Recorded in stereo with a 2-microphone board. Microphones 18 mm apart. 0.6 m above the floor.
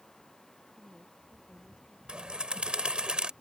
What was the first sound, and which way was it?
A woman speaking, 80° right.